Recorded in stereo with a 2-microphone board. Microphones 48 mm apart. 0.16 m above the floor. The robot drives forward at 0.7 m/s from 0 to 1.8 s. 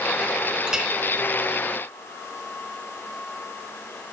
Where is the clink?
15° right (ahead or behind), 1.3 m.